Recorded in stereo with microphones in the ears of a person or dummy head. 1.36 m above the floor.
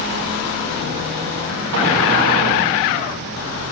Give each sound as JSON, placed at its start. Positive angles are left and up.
{"t": 1.7, "sound": "an explosion", "side_deg": -65, "distance_m": 1.1}